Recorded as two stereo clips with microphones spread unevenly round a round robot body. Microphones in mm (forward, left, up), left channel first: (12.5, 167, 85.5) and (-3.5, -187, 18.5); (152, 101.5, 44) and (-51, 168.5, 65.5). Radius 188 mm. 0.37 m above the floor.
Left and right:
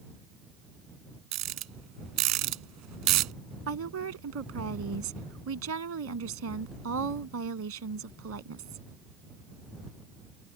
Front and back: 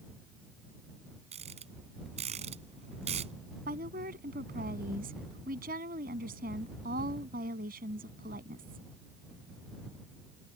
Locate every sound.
1.3 s a rattle: 130° right
3.7 s a woman speaking: 140° right